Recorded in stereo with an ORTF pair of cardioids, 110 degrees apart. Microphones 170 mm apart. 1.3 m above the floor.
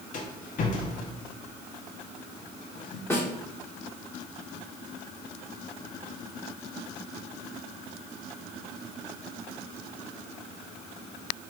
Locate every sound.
0.1 s a rattle: 55° left, 1.4 m
3.1 s a snare drum: 15° left, 2.5 m